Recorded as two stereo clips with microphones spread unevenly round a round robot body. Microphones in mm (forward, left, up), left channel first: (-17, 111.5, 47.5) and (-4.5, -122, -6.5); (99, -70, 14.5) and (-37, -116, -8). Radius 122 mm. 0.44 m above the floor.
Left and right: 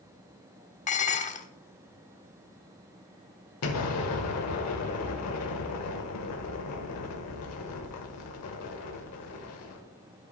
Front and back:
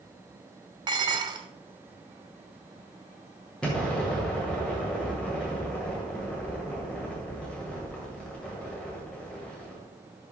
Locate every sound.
0.9 s dishes clattering: 155° left, 0.8 m
3.6 s an explosion: 110° left, 1.9 m